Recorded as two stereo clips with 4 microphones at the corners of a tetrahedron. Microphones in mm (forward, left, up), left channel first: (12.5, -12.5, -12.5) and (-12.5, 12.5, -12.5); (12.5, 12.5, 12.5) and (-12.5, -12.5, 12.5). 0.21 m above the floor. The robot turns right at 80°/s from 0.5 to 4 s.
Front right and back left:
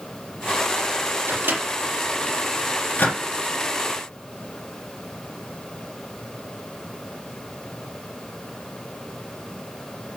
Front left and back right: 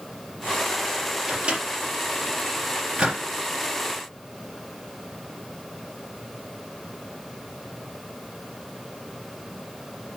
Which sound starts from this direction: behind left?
A microwave, at 1.3 s.